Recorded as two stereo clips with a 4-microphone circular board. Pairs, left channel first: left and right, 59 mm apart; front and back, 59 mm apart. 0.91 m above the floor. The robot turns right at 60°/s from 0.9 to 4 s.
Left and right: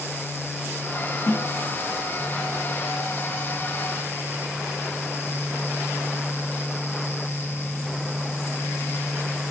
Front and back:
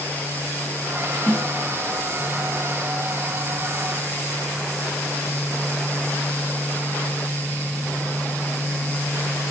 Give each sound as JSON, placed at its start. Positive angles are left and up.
{"t": 1.3, "sound": "a snare drum", "azimuth_deg": 75, "distance_m": 1.4}